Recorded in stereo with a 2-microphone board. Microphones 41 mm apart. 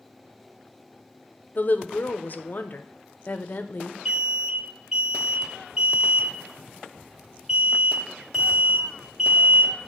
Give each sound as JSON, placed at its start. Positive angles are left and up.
{"t": 1.6, "sound": "a woman speaking", "side_deg": 45, "distance_m": 0.6}
{"t": 4.0, "sound": "an alarm", "side_deg": -15, "distance_m": 2.0}